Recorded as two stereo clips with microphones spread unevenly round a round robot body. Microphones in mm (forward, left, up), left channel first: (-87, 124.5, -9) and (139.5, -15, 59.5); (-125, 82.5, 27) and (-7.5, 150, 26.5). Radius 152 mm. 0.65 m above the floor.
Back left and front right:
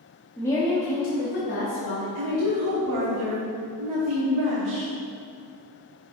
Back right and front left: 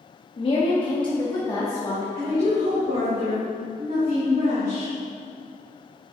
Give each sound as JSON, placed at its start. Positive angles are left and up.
{"t": 0.4, "sound": "a woman speaking", "azimuth_deg": -150, "distance_m": 0.9}
{"t": 2.1, "sound": "a woman speaking", "azimuth_deg": -30, "distance_m": 1.4}